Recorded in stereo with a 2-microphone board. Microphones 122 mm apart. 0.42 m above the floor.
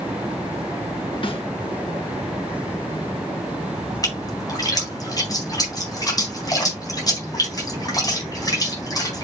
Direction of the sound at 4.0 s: 30° left (ahead or behind).